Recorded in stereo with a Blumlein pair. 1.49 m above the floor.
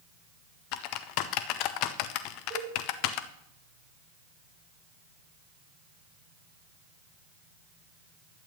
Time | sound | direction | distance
0.7 | typing on a keyboard | 40° left | 0.8 m
2.5 | a cowbell | 45° right | 5 m